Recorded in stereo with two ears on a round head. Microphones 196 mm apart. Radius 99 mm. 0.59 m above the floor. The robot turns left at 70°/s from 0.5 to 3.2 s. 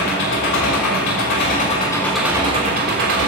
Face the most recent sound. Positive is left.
turn(degrees=-75)